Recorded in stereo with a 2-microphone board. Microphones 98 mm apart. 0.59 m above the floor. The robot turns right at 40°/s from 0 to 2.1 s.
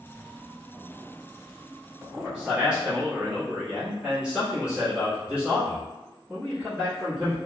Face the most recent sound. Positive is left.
turn(degrees=-10)  # may be behind; listen again after turning